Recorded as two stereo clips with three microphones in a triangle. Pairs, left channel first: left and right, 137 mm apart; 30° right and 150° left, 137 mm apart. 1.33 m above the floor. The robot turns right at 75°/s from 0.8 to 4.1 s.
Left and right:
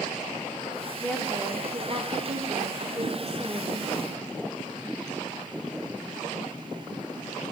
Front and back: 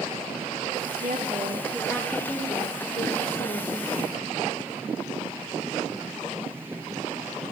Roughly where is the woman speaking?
Behind.